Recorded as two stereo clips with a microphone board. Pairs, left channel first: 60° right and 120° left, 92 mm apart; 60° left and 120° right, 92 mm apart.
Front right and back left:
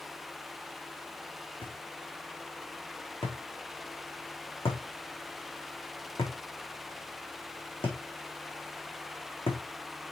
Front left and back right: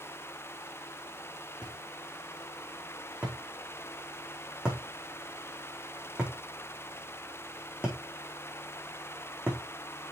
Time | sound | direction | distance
1.6 | a thud | 45° right | 4.5 m